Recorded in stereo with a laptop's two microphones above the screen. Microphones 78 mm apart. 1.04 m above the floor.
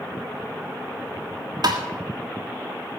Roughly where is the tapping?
Right.